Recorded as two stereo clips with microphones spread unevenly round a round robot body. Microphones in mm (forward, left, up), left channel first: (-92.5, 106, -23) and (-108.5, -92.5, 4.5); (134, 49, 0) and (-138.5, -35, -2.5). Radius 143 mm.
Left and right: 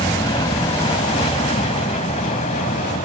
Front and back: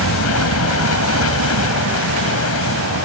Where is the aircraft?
15° left; by 3.0 s 35° left.